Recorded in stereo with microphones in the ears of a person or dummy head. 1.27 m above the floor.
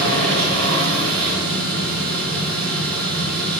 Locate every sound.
0.0 s a machine running: 75° right (ahead or behind), 2.5 m